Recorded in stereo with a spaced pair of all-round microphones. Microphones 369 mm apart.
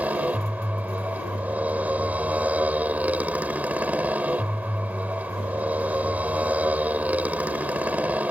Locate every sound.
0.0 s a motorcycle: 5° right (ahead or behind)